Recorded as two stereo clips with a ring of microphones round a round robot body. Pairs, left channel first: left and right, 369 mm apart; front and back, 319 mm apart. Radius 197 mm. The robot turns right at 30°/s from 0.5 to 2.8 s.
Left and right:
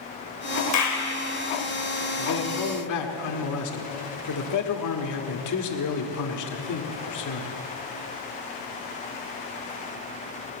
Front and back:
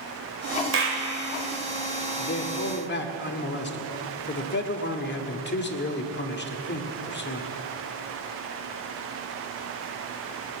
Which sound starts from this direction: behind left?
A clap, at 0.7 s.